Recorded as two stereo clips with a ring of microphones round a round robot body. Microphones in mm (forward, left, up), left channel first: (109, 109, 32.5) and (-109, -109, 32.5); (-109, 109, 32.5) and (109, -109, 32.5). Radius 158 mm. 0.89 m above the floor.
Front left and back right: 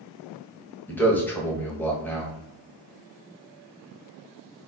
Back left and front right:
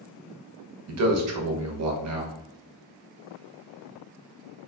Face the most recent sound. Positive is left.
turn(degrees=-35)